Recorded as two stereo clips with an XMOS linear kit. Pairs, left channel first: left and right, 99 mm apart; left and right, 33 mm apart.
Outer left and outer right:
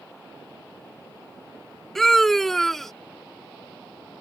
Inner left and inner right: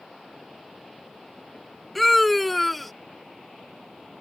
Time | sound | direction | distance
1.9 | a scream | centre (ahead or behind) | ?